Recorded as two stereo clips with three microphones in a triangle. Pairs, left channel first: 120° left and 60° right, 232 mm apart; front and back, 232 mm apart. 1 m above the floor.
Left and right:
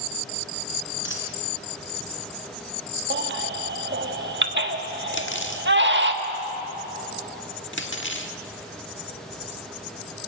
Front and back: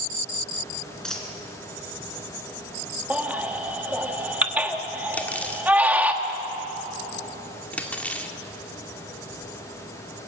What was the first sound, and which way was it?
A dropped coin, 85° left.